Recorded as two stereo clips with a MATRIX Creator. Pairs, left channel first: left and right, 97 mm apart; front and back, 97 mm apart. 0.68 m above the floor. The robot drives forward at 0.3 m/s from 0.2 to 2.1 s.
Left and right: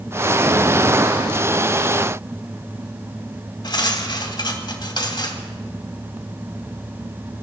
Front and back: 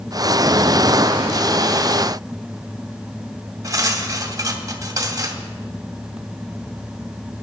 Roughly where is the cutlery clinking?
Behind left.